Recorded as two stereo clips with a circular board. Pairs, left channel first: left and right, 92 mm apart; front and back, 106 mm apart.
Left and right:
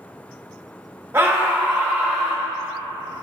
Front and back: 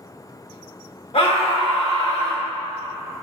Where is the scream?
25° right, 1.7 m; by 2.4 s 10° right, 2 m.